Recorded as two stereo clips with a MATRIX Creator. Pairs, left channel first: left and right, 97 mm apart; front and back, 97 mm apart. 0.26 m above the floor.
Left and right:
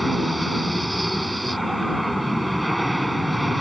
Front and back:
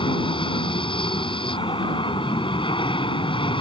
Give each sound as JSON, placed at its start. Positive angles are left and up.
{"t": 0.0, "sound": "an aircraft", "azimuth_deg": 0}